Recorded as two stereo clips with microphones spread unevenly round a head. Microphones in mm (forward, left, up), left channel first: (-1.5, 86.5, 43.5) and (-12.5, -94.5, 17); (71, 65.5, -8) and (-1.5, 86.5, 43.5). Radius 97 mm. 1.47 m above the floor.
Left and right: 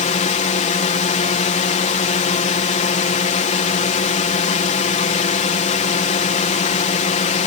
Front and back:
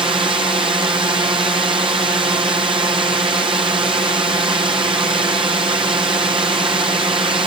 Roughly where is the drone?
Behind left.